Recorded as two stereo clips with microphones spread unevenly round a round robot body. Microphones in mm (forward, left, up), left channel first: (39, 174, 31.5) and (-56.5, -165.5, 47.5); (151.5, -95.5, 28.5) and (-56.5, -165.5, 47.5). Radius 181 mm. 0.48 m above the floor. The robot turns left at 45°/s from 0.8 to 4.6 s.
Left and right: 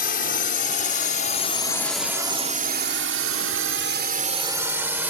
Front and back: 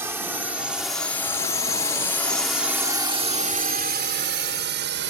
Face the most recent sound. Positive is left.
turn(degrees=170)